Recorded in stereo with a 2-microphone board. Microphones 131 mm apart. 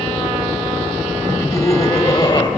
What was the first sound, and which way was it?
Laughter, 15° left (ahead or behind).